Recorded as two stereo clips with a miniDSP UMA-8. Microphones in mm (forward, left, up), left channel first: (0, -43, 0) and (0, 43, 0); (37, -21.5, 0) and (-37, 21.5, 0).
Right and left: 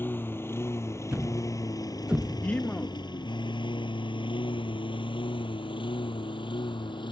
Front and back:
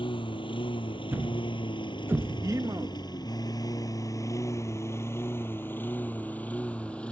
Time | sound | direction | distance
0.0 | a lawn mower | 25° right | ?
1.1 | a thud | 155° left | ?
2.4 | a man speaking | 165° right | ?